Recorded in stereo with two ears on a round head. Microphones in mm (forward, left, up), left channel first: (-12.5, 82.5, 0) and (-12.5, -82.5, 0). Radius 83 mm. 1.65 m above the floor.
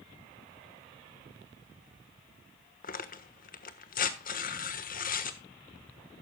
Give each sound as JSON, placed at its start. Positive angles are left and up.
{"t": 2.8, "sound": "tearing paper", "side_deg": 50, "distance_m": 1.3}